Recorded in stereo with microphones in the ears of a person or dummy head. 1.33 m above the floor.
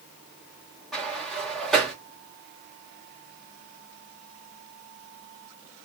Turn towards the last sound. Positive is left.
turn(degrees=0)  # may be behind; listen again after turning